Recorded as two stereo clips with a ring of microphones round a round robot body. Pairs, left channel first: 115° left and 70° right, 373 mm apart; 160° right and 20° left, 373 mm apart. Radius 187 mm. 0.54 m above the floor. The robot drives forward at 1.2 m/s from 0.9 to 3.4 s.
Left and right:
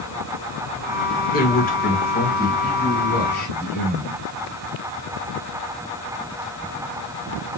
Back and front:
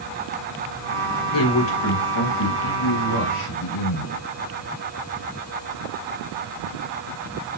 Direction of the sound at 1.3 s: 175° left.